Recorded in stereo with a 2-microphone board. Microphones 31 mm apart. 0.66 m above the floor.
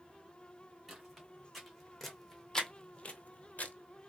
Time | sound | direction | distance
0.9 | footsteps | centre (ahead or behind) | 3 m